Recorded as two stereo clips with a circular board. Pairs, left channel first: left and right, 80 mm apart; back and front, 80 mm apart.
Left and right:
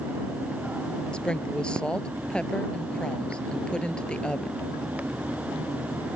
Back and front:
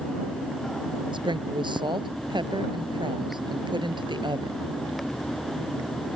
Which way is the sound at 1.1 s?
10° left.